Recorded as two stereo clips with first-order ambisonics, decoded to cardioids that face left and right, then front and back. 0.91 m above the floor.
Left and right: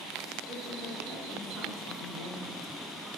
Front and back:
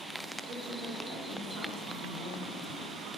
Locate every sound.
0.5 s a woman speaking: straight behind, 1.3 m